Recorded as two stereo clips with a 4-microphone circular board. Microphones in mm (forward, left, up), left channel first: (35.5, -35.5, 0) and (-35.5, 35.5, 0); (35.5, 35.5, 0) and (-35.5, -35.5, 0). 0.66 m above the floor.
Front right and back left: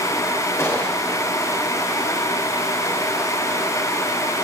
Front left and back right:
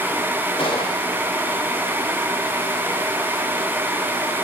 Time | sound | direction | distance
0.6 | a gunshot | 20° left | 3.5 m